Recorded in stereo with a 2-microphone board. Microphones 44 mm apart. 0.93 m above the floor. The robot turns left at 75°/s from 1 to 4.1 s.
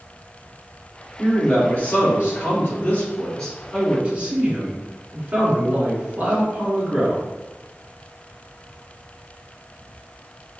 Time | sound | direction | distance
1.2 | a man speaking | 170° right | 2.0 m